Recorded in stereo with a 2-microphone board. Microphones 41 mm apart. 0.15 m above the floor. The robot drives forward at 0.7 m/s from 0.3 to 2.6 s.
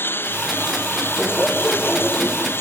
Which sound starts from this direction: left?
A lawn mower, at 0.0 s.